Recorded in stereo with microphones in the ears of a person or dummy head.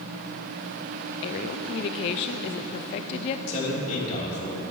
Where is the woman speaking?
35° left (ahead or behind), 0.6 m.